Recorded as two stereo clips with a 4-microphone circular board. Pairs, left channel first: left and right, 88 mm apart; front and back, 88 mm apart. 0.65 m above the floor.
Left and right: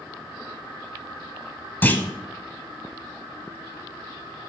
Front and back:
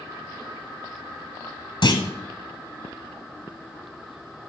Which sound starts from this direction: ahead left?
A clunk, at 1.8 s.